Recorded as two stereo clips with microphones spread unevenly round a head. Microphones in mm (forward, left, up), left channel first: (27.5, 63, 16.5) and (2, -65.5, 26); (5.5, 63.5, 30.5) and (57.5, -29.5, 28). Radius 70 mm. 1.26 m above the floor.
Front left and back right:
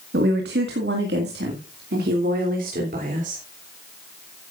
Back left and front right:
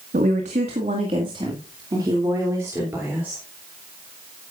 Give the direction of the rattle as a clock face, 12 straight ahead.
No rattle in this recording.